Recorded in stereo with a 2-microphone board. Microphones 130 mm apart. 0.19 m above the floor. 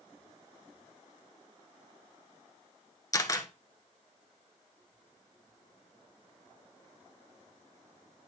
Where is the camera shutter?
25° left (ahead or behind), 1.0 m.